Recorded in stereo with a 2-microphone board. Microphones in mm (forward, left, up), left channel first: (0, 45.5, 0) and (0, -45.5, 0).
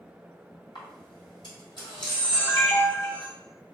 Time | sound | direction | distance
0.8 | a camera shutter | 60° left (ahead or behind) | 2.0 m